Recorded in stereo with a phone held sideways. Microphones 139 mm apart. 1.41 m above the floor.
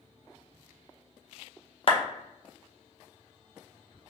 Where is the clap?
45° left (ahead or behind), 0.6 m.